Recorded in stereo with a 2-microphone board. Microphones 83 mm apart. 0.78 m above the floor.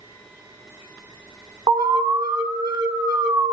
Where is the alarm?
60° right (ahead or behind), 1.5 m.